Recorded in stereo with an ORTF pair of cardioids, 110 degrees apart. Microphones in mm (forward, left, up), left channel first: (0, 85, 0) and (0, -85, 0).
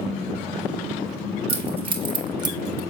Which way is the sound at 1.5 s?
35° right.